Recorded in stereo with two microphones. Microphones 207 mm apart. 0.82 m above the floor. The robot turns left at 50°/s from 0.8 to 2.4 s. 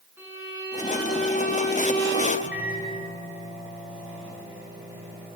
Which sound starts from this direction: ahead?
A violin, at 0.2 s.